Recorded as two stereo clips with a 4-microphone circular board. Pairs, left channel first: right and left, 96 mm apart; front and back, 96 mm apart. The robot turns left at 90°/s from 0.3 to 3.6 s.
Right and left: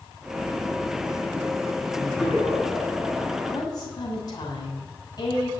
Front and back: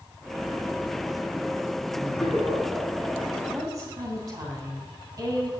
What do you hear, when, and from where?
1.9 s laughter: 5° left, 7.5 m; by 3.4 s 130° right, 7.5 m
3.5 s a woman speaking: 120° right, 3 m; by 5.5 s 130° right, 3 m